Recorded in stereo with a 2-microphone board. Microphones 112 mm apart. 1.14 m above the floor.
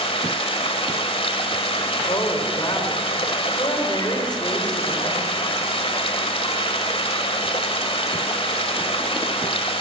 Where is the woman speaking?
40° left (ahead or behind), 3.5 m.